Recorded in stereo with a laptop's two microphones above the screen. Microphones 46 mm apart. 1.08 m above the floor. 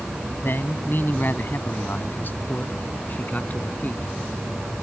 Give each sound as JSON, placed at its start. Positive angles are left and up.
{"t": 0.4, "sound": "a man speaking", "side_deg": 50}